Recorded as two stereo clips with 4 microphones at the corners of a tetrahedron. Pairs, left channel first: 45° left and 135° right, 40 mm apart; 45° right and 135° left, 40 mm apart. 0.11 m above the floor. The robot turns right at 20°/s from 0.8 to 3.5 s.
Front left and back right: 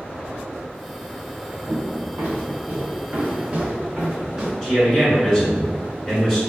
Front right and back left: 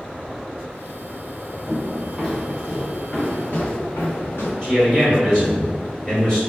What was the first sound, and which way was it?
Footsteps, 140° right.